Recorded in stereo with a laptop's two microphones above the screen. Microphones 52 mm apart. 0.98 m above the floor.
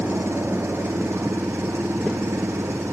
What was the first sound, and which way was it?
An engine running, 55° right (ahead or behind).